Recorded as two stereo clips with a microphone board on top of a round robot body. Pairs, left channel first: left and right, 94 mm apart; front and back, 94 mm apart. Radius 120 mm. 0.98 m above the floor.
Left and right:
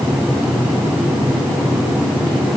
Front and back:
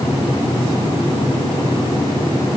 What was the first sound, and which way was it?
Only background noise.